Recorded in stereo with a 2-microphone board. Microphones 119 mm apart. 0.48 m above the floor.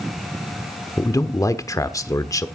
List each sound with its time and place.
1.0 s a man speaking: 25° left (ahead or behind), 1.1 m